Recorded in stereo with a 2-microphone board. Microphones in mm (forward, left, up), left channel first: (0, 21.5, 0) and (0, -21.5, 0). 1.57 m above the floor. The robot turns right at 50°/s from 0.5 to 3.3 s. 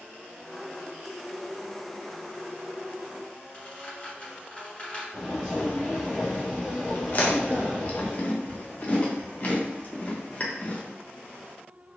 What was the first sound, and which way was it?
A squeak, 25° left (ahead or behind).